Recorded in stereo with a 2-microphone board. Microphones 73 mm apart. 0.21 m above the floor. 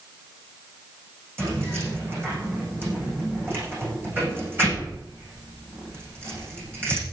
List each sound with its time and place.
1.4 s keys jangling: 30° right (ahead or behind), 9 m